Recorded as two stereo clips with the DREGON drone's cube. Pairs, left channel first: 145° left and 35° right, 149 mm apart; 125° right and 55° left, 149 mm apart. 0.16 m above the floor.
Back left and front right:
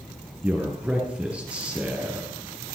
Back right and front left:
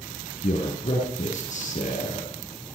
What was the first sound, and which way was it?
A man speaking, 115° right.